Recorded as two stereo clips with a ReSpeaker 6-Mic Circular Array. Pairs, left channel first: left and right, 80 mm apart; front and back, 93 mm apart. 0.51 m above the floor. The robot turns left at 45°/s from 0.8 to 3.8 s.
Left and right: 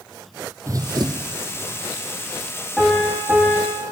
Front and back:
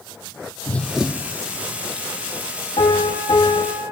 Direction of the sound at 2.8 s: 5° left.